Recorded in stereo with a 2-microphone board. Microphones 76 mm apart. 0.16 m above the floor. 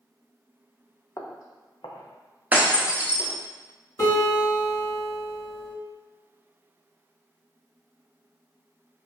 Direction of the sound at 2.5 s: 20° right (ahead or behind).